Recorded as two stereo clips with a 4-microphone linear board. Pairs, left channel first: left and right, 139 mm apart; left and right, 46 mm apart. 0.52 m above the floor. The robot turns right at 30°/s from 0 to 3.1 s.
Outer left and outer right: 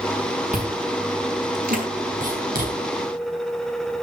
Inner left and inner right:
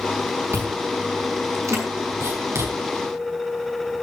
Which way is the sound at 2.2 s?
65° right (ahead or behind).